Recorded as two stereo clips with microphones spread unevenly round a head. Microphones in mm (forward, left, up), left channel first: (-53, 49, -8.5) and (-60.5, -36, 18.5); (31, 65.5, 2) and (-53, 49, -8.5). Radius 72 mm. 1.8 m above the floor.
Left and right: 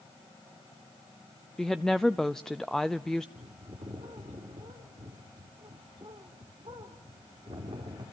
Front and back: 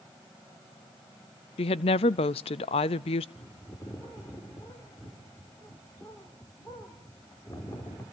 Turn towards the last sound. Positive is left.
turn(degrees=-55)